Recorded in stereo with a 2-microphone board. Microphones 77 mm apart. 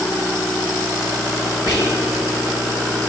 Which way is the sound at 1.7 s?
60° right (ahead or behind).